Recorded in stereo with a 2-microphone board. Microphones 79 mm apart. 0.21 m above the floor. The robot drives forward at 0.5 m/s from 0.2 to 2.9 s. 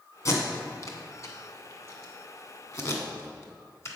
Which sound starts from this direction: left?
Tape being pulled, at 0.2 s.